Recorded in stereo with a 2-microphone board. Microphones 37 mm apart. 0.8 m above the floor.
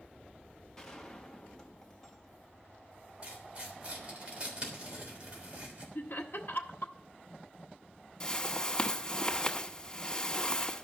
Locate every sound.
0.8 s a gunshot: 15° left (ahead or behind), 1.4 m
3.2 s tearing paper: 25° right (ahead or behind), 3 m
6.0 s laughter: 60° left (ahead or behind), 1.2 m
8.2 s a whoosh: 20° left (ahead or behind), 1.0 m